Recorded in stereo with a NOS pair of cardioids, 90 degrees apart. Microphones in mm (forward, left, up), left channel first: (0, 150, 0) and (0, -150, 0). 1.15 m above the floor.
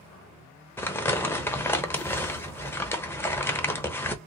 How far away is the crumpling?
About 0.8 m.